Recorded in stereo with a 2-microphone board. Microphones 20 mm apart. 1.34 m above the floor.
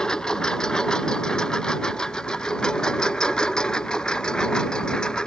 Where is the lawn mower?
45° left (ahead or behind); by 5.3 s 50° left (ahead or behind).